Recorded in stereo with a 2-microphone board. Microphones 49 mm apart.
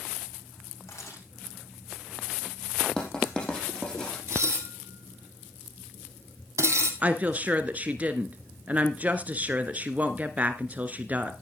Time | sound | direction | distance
0.9 | a camera shutter | 70° left (ahead or behind) | 6 m
3.0 | writing | 15° left (ahead or behind) | 4.5 m
4.3 | dishes clattering | 70° right (ahead or behind) | 2.5 m
7.0 | a woman speaking | 35° right (ahead or behind) | 1.2 m